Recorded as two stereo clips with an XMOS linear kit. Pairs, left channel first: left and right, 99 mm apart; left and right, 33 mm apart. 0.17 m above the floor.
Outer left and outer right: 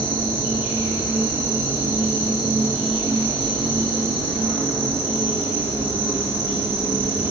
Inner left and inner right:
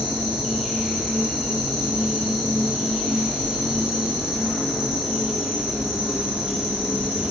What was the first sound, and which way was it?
An insect, 20° right (ahead or behind).